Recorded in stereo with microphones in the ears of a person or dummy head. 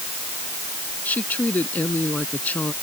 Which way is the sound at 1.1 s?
10° left (ahead or behind).